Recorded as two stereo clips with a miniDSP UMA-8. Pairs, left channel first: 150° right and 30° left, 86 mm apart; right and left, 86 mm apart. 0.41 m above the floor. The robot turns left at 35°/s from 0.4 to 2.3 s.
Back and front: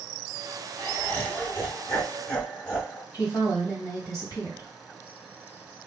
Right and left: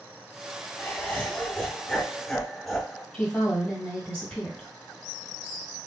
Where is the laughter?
115° right, 1.2 m; by 3.0 s 170° right, 1.2 m.